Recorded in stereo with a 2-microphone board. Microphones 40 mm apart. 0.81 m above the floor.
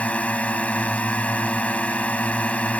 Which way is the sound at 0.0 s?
30° left (ahead or behind).